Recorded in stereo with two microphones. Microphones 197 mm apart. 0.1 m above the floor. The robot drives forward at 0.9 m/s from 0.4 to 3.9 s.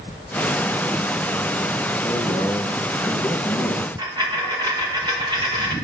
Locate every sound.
2.0 s a man speaking: 5° right (ahead or behind), 1.5 m; by 3.9 s centre (ahead or behind), 2.5 m
4.0 s a dropped coin: 20° right (ahead or behind), 4 m